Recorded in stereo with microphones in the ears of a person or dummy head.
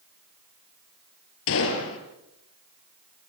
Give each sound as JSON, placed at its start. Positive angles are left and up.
{"t": 1.5, "sound": "a gunshot", "side_deg": 70, "distance_m": 4.0}